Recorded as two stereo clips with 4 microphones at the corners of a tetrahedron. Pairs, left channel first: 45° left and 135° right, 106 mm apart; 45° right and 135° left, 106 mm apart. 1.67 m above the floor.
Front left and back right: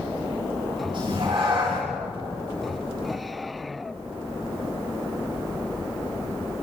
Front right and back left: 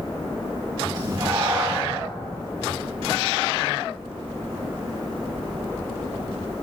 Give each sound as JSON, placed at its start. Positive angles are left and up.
{"t": 0.9, "sound": "a cat meowing", "azimuth_deg": -175, "distance_m": 7.5}